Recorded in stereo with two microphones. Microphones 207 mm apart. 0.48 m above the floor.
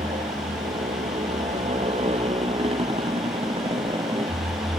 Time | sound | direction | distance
0.0 | a motorcycle | 35° right (ahead or behind) | ?